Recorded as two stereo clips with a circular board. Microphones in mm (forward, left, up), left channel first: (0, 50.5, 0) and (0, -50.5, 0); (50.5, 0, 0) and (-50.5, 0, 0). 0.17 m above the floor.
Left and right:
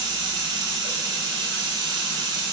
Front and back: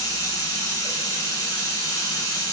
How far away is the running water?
About 0.8 m.